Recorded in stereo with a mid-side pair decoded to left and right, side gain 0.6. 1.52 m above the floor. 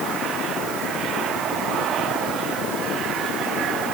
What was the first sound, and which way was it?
Only background noise.